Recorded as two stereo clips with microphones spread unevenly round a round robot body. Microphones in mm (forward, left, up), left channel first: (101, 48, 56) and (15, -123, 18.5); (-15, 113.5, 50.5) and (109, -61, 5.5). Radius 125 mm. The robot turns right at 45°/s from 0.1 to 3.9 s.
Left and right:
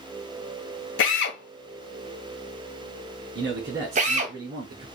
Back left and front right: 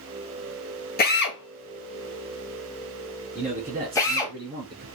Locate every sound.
1.0 s a drill: 75° left, 1.7 m; by 4.3 s 150° right, 1.7 m
3.4 s a man speaking: 120° right, 4 m; by 4.8 s 95° right, 4 m